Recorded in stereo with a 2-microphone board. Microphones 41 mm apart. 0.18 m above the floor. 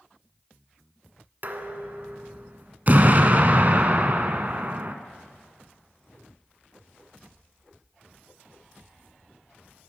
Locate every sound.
1.4 s dishes clattering: 50° right (ahead or behind), 1.2 m
2.9 s an explosion: 45° right (ahead or behind), 1.1 m